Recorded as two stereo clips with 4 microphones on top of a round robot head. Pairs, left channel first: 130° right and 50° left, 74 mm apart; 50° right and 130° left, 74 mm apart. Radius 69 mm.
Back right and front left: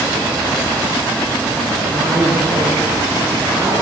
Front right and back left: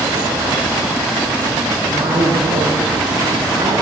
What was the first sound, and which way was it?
A woman speaking, 125° left.